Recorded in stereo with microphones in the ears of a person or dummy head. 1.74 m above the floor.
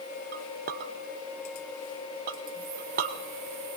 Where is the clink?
45° right (ahead or behind), 0.8 m.